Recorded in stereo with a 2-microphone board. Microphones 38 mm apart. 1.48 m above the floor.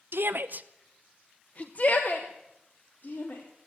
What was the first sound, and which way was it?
A shout, 70° right (ahead or behind).